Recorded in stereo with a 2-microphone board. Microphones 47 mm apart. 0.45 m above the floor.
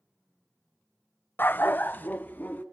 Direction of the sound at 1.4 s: 45° left (ahead or behind).